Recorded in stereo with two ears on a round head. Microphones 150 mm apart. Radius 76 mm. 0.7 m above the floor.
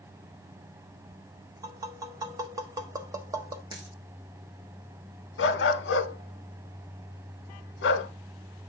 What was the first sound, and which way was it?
Tapping, 20° right (ahead or behind).